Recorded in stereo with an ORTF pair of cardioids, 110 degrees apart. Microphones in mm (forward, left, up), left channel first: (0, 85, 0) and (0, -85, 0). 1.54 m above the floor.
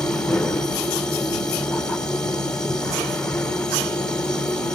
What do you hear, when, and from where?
0.0 s a machine running: 5° left, 1.2 m